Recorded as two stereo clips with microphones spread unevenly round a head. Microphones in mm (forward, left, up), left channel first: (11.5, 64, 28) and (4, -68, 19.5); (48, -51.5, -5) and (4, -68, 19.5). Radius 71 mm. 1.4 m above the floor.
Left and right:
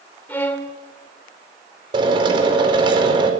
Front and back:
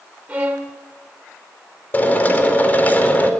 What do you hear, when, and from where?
0.3 s a violin: 160° left, 1.8 m
1.9 s a drill: 35° right, 4.5 m